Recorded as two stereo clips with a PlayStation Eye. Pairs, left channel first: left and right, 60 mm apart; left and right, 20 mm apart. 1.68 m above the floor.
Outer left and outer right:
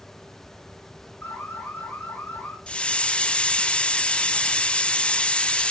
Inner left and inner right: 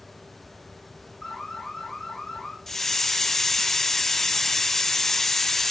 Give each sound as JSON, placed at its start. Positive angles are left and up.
{"t": 1.2, "sound": "an alarm", "side_deg": 40, "distance_m": 6.5}
{"t": 2.7, "sound": "a hiss", "side_deg": 20, "distance_m": 0.5}